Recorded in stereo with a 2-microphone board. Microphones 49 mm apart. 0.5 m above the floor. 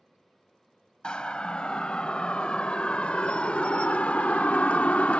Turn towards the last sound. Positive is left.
turn(degrees=30)  # may be behind; listen again after turning